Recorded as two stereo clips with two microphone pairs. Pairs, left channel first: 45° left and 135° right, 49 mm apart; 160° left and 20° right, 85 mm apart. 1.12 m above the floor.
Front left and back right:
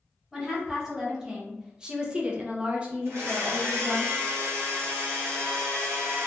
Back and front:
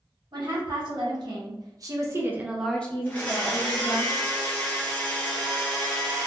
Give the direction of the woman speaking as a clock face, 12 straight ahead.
2 o'clock.